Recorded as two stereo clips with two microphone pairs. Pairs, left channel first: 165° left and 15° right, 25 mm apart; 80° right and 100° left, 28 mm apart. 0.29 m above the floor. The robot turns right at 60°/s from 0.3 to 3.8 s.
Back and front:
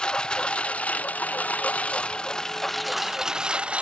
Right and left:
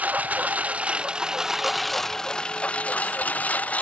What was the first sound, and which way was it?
A lawn mower, 110° left.